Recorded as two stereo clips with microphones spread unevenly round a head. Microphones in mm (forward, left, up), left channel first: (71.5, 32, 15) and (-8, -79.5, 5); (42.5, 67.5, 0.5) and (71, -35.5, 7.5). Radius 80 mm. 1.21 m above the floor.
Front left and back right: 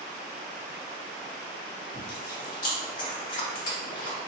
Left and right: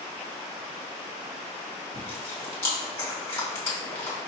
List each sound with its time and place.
1.9 s chewing: 40° left, 2 m